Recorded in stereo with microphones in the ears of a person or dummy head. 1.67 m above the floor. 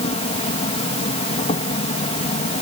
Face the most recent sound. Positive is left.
turn(degrees=30)  # may be behind; listen again after turning